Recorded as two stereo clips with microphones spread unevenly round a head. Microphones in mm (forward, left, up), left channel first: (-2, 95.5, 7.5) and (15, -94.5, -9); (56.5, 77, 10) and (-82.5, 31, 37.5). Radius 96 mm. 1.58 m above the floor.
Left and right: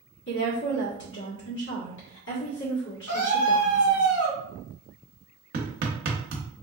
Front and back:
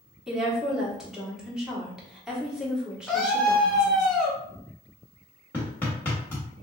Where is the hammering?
70° right, 0.9 m.